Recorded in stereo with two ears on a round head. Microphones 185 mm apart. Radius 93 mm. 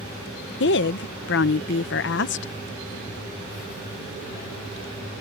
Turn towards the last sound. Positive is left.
turn(degrees=60)  # may be behind; listen again after turning